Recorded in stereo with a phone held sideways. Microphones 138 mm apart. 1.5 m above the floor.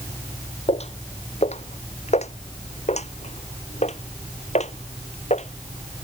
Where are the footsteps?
50° left (ahead or behind); by 6.0 s 55° left (ahead or behind).